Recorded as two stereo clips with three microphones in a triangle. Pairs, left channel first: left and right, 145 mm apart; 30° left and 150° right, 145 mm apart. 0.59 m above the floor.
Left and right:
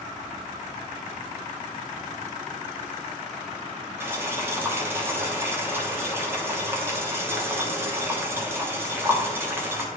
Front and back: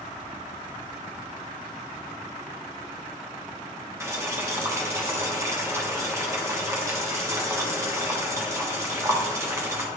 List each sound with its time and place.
4.0 s boiling: 130° right, 1.2 m